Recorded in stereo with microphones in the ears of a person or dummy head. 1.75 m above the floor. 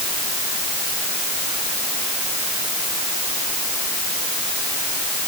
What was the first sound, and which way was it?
Only background noise.